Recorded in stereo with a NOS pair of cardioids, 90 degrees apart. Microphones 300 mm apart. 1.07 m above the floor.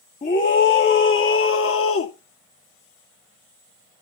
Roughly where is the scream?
Ahead left.